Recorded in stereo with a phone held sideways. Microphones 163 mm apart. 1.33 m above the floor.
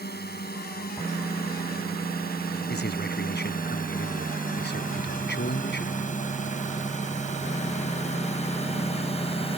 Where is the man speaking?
75° left (ahead or behind).